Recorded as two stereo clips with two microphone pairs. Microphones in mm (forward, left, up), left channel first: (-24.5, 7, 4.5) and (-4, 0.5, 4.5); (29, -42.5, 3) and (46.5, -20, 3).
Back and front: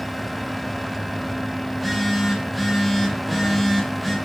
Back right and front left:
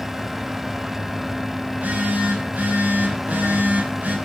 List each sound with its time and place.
1.7 s a phone buzzing: 70° left, 3.5 m